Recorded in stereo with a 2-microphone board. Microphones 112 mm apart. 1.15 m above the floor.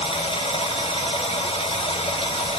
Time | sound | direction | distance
0.0 | running water | 60° left (ahead or behind) | 0.8 m